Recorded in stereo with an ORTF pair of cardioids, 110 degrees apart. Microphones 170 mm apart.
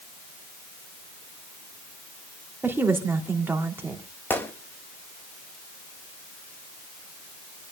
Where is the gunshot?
10° left, 1.5 m.